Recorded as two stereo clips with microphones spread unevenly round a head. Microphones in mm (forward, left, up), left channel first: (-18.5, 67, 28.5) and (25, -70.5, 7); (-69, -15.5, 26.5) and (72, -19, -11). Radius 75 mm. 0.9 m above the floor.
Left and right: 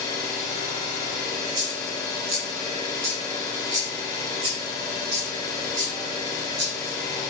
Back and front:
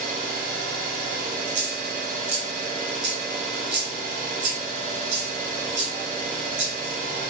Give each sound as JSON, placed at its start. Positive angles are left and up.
{"t": 0.0, "sound": "an engine running", "azimuth_deg": 45, "distance_m": 1.2}
{"t": 1.5, "sound": "a dropped coin", "azimuth_deg": 0, "distance_m": 1.6}